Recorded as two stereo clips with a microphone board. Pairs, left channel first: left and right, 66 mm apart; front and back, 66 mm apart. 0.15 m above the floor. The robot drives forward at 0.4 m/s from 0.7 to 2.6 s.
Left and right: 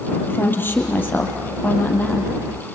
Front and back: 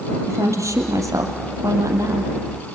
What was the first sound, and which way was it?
A woman speaking, 145° left.